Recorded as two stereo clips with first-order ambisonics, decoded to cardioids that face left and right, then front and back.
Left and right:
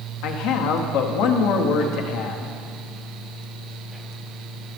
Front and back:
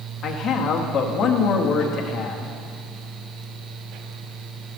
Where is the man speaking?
60° left, 0.9 m.